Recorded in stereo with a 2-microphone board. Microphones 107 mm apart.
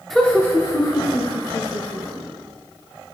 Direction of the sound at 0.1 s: Centre (ahead or behind).